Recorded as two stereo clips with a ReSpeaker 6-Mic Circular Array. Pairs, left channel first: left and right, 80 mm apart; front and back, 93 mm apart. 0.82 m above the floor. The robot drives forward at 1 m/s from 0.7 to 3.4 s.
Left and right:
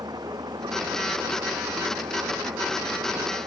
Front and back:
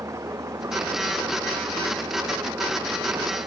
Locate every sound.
0.0 s an engine running: 125° right; by 3.5 s 130° right